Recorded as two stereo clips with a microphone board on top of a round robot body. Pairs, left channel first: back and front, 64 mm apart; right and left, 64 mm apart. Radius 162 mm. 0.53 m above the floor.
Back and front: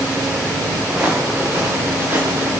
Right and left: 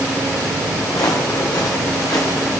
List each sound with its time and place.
0.9 s footsteps: 70° right, 3 m; by 2.6 s 50° right, 3 m